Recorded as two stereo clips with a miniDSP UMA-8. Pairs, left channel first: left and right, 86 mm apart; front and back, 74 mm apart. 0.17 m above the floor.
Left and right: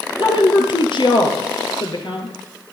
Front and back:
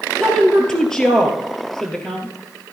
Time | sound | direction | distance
0.2 | a woman speaking | 80° left | 3 m